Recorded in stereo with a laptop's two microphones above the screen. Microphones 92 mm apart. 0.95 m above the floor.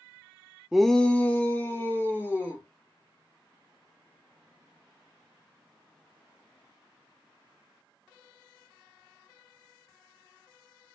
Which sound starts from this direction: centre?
A shout, at 0.7 s.